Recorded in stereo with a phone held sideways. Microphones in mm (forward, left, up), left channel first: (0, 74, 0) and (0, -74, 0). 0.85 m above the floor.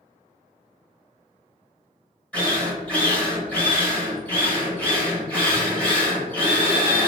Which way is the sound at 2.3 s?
10° left (ahead or behind).